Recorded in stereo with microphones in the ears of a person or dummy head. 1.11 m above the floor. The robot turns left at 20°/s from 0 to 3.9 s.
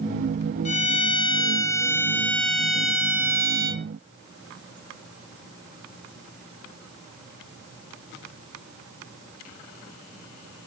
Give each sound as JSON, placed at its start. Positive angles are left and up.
{"t": 0.7, "sound": "a violin", "azimuth_deg": 40, "distance_m": 1.2}